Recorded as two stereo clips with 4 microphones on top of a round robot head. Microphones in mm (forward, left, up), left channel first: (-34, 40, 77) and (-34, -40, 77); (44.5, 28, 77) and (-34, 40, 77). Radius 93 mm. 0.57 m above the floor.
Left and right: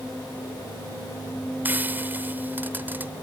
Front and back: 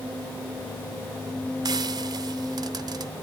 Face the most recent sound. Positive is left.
turn(degrees=-155)